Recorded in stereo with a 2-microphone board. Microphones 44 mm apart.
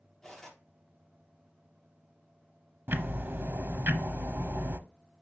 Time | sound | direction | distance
0.2 | cutlery clinking | 10° left (ahead or behind) | 4 m
2.9 | ticking | 50° right (ahead or behind) | 0.8 m